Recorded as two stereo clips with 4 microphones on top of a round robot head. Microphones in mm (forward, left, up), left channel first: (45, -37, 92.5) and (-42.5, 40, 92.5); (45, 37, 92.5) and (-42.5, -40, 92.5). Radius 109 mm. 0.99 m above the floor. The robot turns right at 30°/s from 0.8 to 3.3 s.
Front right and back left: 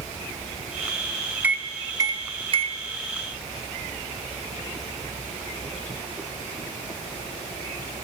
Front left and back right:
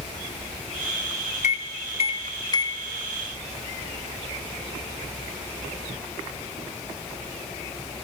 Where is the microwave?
60° left, 1.0 m; by 2.8 s 100° left, 1.0 m.